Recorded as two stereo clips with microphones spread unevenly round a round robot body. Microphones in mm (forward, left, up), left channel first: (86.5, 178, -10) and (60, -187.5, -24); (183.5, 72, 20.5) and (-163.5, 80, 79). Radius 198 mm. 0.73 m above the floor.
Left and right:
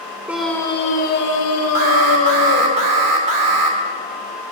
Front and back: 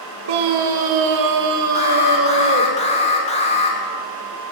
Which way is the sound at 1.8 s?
70° right.